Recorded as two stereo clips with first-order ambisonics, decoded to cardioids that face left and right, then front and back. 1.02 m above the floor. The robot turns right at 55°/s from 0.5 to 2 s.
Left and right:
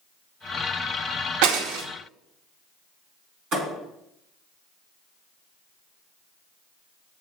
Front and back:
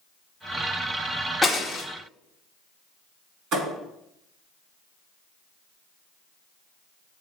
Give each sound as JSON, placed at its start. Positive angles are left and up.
{"t": 1.4, "sound": "breaking glass", "azimuth_deg": -90, "distance_m": 0.8}
{"t": 3.5, "sound": "a thud", "azimuth_deg": -135, "distance_m": 1.8}